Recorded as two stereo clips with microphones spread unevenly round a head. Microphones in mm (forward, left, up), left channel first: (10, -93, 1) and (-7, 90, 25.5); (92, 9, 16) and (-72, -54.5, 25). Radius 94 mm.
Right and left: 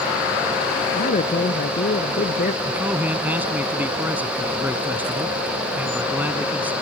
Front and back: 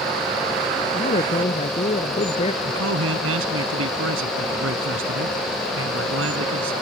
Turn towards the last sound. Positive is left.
turn(degrees=175)